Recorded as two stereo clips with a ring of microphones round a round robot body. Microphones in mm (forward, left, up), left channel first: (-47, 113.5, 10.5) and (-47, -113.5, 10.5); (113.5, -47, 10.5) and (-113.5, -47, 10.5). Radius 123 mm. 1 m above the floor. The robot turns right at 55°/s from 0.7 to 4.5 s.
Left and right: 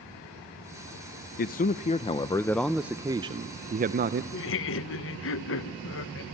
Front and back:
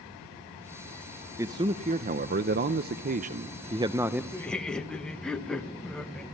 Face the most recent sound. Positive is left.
turn(degrees=85)